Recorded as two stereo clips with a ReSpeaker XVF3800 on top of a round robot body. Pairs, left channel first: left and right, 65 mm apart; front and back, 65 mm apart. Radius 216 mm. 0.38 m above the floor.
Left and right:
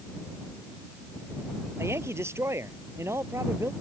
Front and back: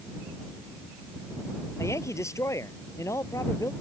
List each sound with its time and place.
1.8 s a woman speaking: 40° right